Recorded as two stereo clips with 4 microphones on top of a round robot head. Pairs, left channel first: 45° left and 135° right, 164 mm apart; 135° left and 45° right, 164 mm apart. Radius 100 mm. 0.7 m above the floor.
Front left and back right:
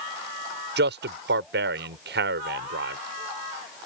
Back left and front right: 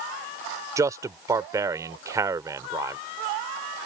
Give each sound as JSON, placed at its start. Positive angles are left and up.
{"t": 0.8, "sound": "a man speaking", "azimuth_deg": -120}